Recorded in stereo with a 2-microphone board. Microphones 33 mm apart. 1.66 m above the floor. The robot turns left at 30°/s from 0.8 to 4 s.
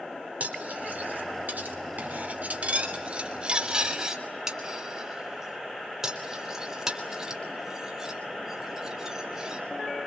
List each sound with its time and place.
0.4 s cutlery clinking: 65° right (ahead or behind), 3 m; by 9.6 s 15° right (ahead or behind), 3 m